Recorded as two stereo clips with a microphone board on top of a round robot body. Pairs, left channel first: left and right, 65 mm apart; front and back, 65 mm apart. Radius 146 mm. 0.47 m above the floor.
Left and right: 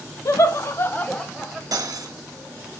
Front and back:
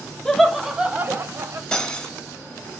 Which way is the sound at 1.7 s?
75° right.